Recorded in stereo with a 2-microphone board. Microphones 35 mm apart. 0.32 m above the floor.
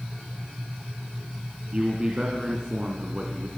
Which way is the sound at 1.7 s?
25° right (ahead or behind).